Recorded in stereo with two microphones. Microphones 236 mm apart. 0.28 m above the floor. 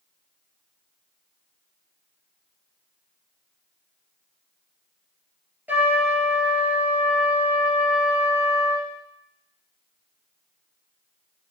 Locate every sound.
5.7 s a trumpet: 5° right (ahead or behind), 2.5 m